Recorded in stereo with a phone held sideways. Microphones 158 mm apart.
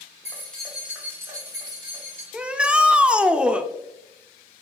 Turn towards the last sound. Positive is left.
turn(degrees=-5)  # may be behind; listen again after turning